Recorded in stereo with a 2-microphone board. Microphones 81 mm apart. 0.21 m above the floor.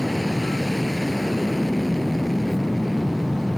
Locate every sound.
0.0 s an aircraft: centre (ahead or behind)